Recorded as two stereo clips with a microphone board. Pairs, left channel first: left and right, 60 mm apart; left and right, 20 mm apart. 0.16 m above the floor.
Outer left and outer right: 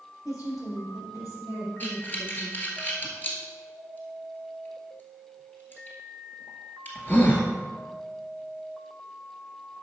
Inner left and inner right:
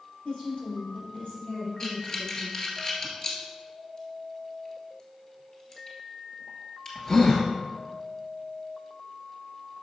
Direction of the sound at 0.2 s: 70° left (ahead or behind).